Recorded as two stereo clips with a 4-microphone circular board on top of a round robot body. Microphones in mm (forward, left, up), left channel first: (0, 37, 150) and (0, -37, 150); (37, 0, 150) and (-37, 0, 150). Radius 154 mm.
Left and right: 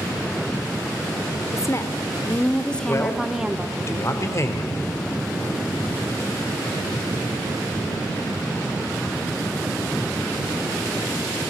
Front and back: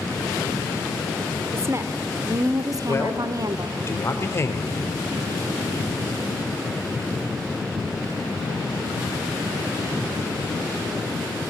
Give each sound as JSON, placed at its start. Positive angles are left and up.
{"t": 1.5, "sound": "a woman speaking", "azimuth_deg": 130, "distance_m": 1.4}
{"t": 2.9, "sound": "a man speaking", "azimuth_deg": 50, "distance_m": 2.5}